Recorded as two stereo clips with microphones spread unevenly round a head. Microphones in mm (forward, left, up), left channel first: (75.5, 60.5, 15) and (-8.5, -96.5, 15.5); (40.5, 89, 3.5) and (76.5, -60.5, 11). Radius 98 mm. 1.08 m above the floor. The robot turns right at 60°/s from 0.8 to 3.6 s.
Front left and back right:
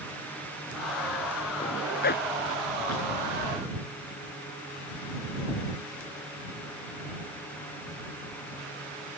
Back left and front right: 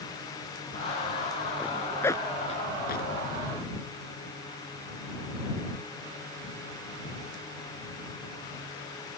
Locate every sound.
1.6 s a zipper: straight ahead; by 3.1 s 90° left